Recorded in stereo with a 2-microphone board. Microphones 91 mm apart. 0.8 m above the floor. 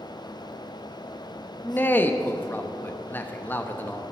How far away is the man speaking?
About 0.8 m.